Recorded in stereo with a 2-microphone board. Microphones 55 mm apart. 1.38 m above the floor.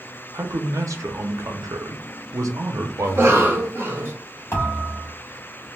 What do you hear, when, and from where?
0.3 s a man speaking: 70° right (ahead or behind), 0.6 m
3.0 s a cough: 45° right (ahead or behind), 1.0 m
4.5 s a thud: 50° left (ahead or behind), 1.3 m